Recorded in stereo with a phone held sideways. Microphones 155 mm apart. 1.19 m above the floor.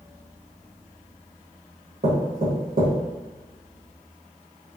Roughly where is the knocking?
Right.